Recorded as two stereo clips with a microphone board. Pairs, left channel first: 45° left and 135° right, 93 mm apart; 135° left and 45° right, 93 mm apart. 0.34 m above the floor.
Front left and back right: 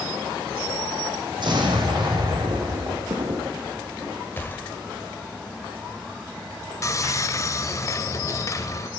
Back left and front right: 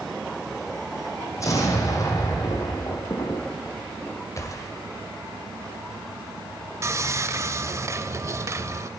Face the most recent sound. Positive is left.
turn(degrees=0)